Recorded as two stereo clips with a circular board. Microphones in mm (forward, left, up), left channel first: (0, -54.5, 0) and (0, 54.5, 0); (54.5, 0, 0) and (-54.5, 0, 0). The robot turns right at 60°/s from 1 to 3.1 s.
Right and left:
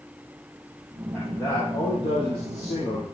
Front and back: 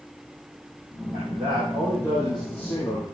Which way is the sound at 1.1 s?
165° right.